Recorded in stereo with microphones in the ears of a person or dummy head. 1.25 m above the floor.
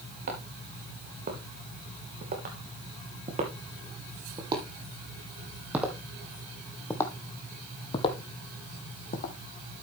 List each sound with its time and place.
0.3 s footsteps: 55° right (ahead or behind), 4.5 m; by 9.3 s 45° left (ahead or behind), 2.5 m